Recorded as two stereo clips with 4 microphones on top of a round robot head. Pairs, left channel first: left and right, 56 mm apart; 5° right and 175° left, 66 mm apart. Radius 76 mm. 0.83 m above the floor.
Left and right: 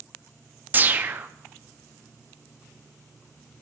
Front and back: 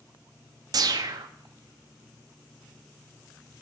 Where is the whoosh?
150° right, 0.6 m.